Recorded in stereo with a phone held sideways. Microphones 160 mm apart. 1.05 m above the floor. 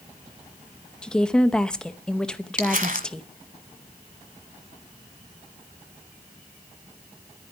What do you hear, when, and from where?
1.0 s a woman speaking: 5° left (ahead or behind), 0.8 m
2.6 s crumpling: 55° right (ahead or behind), 1.5 m